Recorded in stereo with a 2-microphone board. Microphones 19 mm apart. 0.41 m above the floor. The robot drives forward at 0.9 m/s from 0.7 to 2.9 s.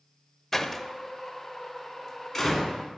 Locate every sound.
0.5 s a door slam: 10° left (ahead or behind), 0.8 m; by 2.8 s 5° left (ahead or behind), 2.5 m